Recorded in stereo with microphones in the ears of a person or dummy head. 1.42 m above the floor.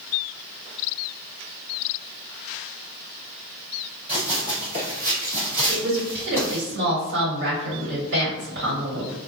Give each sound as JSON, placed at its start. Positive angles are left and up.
{"t": 4.1, "sound": "running footsteps", "side_deg": -30, "distance_m": 1.9}
{"t": 5.7, "sound": "a woman speaking", "side_deg": -55, "distance_m": 1.5}